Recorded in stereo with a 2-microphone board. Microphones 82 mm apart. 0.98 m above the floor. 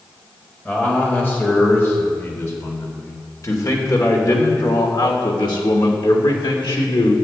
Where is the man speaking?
20° left (ahead or behind), 4 m; by 7.1 s 80° left, 3 m.